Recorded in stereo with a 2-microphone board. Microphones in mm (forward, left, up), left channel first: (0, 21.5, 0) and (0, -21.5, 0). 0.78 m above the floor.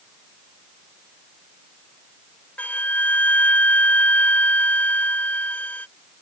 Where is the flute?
40° left (ahead or behind).